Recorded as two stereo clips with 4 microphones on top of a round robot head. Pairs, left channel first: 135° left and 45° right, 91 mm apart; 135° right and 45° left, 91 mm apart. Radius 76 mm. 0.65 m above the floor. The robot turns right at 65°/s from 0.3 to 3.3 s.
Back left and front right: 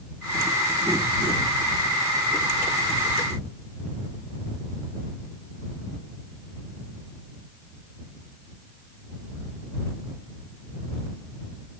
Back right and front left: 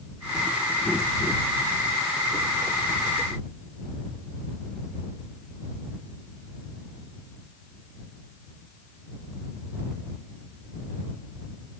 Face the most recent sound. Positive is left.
No sound to turn to.